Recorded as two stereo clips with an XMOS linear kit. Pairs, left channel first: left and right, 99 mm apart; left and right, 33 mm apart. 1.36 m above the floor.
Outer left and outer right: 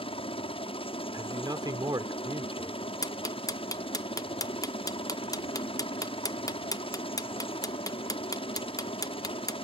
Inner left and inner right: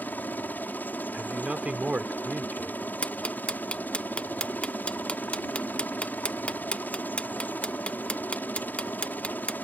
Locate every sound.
0.0 s a helicopter: 70° left (ahead or behind)
1.1 s a man speaking: 40° right (ahead or behind)
3.0 s ticking: 35° left (ahead or behind)